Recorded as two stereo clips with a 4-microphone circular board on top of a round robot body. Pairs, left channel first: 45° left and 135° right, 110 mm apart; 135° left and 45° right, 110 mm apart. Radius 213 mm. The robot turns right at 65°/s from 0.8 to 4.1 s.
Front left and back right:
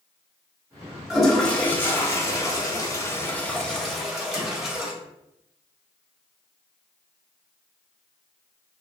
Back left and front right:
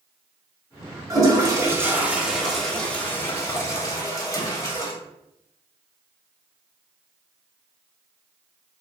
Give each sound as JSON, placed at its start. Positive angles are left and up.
{"t": 1.1, "sound": "a toilet flushing", "azimuth_deg": -50, "distance_m": 1.0}